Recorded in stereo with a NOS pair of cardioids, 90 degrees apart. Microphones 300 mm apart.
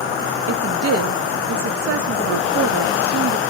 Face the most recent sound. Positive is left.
turn(degrees=-50)